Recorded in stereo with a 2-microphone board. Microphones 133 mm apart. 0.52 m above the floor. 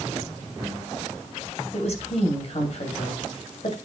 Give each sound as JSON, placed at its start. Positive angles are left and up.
{"t": 1.7, "sound": "a woman speaking", "side_deg": 55, "distance_m": 2.5}